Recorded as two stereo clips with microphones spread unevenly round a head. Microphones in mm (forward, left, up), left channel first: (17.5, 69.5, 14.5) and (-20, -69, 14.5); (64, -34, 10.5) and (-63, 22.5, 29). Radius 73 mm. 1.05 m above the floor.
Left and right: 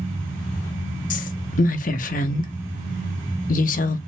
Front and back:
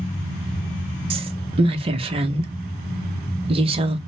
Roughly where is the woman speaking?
Left.